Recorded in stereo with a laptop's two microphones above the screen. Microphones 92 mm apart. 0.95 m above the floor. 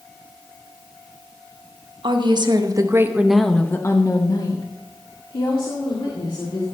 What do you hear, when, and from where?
2.0 s a woman speaking: 60° right (ahead or behind), 1.3 m; by 6.6 s 70° left (ahead or behind), 3 m